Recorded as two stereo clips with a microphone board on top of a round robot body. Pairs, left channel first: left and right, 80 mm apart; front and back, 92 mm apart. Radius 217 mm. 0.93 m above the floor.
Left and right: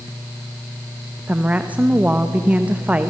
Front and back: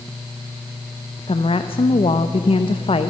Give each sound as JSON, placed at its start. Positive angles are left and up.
{"t": 1.3, "sound": "a woman speaking", "azimuth_deg": -20, "distance_m": 1.0}